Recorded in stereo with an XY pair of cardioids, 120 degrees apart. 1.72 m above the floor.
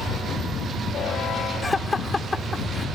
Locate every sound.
1.6 s laughter: 15° left